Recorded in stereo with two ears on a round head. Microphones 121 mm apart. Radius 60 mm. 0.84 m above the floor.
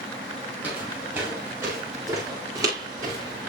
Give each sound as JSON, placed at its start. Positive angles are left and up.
{"t": 0.6, "sound": "footsteps", "side_deg": -15, "distance_m": 8.0}